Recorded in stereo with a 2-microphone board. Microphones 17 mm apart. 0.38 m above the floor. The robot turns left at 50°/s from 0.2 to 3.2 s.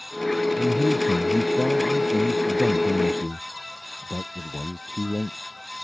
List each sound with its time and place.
0.6 s a man speaking: 95° left; by 5.4 s 40° right